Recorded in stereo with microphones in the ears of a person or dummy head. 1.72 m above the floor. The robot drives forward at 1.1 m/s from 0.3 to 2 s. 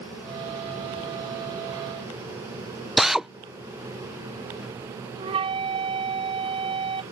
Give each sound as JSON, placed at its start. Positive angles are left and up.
{"t": 3.0, "sound": "a drill", "side_deg": 0}
{"t": 5.2, "sound": "a flute", "side_deg": -35}